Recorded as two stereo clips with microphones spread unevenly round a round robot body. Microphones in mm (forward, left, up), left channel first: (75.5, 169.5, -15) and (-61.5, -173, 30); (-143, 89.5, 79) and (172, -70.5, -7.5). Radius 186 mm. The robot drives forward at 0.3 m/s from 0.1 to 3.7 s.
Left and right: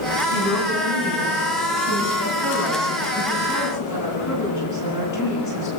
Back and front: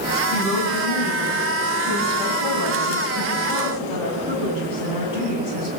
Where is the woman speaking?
110° left, 9.5 m; by 5.7 s 115° left, 10 m.